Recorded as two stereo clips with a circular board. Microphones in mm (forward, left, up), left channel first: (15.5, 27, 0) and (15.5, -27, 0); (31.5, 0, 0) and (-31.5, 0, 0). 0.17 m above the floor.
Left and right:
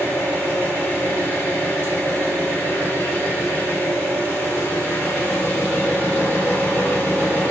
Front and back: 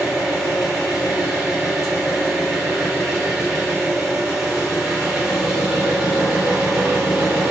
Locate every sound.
0.0 s an engine running: 105° left, 1.8 m